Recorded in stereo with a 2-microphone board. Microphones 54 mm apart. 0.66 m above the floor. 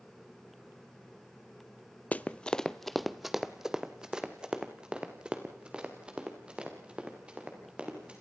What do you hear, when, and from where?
2.1 s running footsteps: 25° left (ahead or behind), 0.7 m; by 8.2 s 20° right (ahead or behind), 5 m